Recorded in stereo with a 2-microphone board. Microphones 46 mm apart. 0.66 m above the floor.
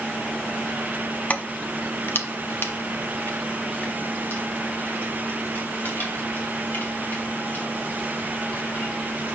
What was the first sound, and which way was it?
Keys jangling, 35° left (ahead or behind).